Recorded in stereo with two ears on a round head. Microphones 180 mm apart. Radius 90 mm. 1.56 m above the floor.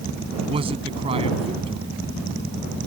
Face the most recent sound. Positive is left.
turn(degrees=-30)  # may be behind; listen again after turning